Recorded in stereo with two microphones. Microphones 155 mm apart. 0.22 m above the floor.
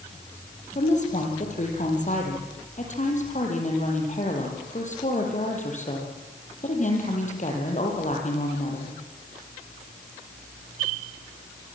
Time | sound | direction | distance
0.8 | a woman speaking | 50° left (ahead or behind) | 7 m